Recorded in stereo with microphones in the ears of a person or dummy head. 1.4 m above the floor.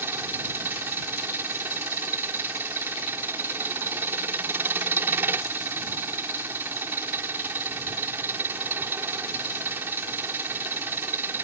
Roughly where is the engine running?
Centre.